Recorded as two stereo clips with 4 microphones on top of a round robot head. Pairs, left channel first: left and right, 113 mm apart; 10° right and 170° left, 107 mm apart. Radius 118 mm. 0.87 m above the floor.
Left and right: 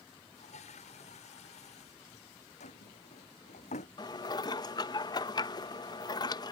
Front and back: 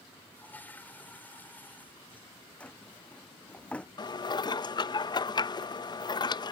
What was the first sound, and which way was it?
A toilet flushing, 65° left.